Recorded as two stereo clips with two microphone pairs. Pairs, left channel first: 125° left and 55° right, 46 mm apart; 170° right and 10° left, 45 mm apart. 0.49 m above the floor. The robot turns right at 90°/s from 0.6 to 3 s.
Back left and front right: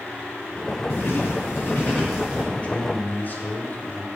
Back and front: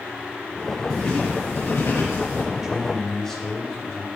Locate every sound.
0.9 s writing: 100° left, 5 m; by 2.4 s 120° right, 5 m
2.5 s a man speaking: 70° left, 1.9 m; by 4.1 s 110° left, 1.9 m